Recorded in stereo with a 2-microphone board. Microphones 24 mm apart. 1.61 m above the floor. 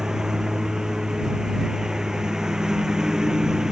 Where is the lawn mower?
30° right (ahead or behind).